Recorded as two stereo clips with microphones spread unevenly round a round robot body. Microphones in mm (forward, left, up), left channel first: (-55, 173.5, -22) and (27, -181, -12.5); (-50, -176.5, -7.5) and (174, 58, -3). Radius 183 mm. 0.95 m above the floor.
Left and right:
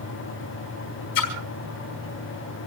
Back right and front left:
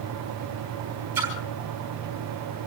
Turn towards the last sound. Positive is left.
turn(degrees=130)